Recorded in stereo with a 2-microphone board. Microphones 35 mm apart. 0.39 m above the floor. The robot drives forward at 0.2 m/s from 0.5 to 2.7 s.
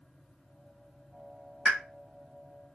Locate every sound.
1.6 s a pop: 35° right (ahead or behind), 1.1 m